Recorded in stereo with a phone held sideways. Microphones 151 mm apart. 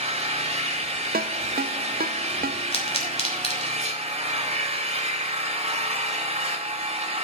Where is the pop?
40° left (ahead or behind), 3 m.